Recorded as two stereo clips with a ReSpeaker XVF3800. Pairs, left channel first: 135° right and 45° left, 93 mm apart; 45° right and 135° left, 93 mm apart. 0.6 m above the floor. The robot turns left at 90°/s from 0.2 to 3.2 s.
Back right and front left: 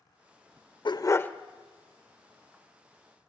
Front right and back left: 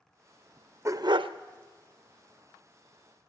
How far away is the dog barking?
About 0.6 m.